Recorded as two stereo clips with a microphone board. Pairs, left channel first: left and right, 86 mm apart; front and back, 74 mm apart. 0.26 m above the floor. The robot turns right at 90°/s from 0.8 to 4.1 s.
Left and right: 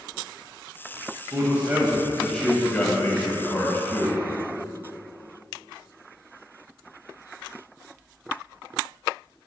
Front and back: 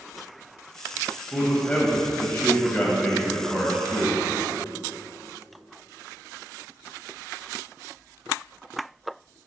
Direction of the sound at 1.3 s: 80° right.